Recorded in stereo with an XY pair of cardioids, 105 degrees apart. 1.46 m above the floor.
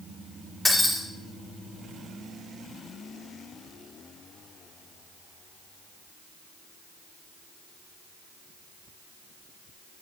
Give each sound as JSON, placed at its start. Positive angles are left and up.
{"t": 0.7, "sound": "breaking glass", "azimuth_deg": 5, "distance_m": 3.0}